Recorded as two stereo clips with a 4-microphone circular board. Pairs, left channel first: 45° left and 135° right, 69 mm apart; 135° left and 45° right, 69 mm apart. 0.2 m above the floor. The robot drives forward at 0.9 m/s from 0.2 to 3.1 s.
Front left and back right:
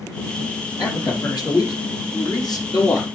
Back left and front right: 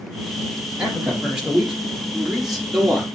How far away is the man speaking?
About 5.5 m.